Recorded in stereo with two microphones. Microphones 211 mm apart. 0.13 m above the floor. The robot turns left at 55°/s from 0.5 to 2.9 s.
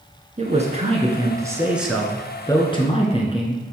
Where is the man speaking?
100° right, 1.8 m; by 3.6 s 125° left, 1.8 m.